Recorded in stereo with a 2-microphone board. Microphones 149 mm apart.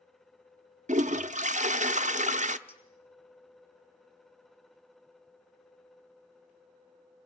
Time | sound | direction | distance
0.9 | a toilet flushing | 55° right (ahead or behind) | 0.6 m
2.7 | a clink | 40° left (ahead or behind) | 3.5 m